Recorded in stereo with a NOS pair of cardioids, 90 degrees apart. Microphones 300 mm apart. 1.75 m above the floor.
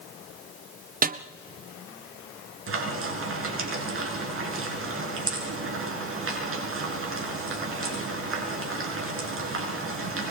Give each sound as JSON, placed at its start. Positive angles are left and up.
{"t": 1.0, "sound": "a snare drum", "azimuth_deg": -30, "distance_m": 1.1}
{"t": 2.7, "sound": "frying", "azimuth_deg": -45, "distance_m": 7.5}